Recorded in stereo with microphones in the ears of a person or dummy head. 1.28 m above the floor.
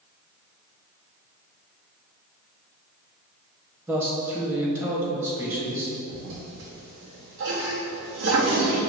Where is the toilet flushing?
65° right (ahead or behind), 1.0 m.